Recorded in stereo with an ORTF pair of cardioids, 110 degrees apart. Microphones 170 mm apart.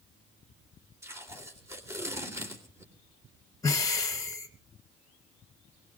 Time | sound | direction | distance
1.0 | tape being pulled | 15° right | 3.5 m
3.6 | breathing | 20° left | 1.8 m